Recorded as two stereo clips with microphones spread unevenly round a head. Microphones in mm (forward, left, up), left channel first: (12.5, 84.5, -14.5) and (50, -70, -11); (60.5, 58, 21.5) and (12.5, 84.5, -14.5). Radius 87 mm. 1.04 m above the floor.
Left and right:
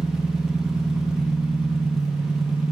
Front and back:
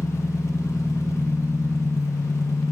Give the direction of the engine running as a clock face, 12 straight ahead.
12 o'clock.